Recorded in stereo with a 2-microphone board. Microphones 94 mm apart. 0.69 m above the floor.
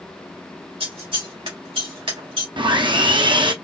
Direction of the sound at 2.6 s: 60° right (ahead or behind).